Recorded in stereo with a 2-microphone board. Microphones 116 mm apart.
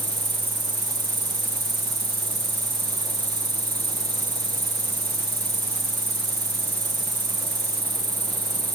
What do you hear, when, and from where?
0.0 s an insect: 40° right (ahead or behind), 1.4 m